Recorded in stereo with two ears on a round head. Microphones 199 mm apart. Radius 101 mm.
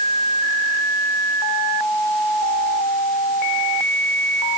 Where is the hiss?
I don't hear a hiss.